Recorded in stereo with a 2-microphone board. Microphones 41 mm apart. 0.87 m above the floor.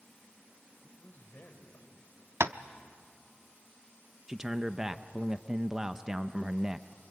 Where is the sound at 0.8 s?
40° left (ahead or behind), 4 m; by 2.1 s 65° left (ahead or behind), 4 m.